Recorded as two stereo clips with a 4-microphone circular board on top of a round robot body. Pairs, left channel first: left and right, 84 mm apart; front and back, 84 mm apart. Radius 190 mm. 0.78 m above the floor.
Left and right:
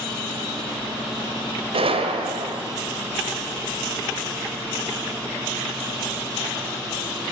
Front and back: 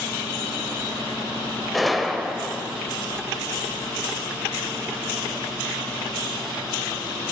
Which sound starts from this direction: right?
A gunshot, at 1.7 s.